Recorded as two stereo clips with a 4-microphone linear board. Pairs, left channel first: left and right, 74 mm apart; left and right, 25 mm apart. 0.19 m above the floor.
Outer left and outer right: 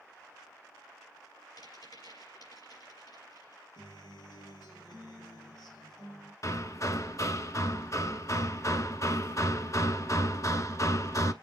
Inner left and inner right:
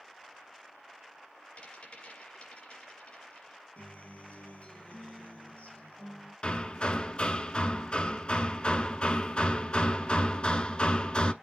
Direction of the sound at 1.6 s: 65° left (ahead or behind).